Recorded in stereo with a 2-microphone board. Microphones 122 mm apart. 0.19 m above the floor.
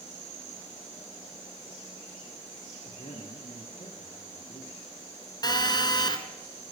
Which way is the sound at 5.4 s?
35° left (ahead or behind).